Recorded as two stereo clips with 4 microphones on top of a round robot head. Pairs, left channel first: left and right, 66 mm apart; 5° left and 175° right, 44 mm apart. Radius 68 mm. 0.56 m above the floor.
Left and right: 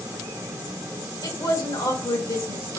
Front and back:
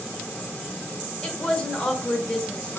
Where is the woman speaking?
80° left, 1.8 m.